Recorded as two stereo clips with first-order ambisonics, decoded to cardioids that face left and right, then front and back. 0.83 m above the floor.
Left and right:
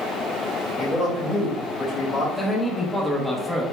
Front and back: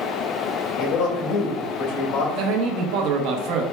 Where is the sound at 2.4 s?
175° left, 0.9 m.